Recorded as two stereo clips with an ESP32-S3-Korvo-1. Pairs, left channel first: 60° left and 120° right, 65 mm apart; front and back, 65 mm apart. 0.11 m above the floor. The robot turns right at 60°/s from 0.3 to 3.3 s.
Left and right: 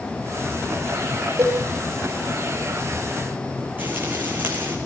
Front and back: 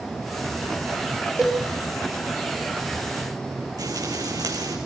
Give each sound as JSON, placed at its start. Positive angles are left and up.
{"t": 1.4, "sound": "a cowbell", "azimuth_deg": -95, "distance_m": 9.5}
{"t": 3.8, "sound": "frying", "azimuth_deg": 180, "distance_m": 5.0}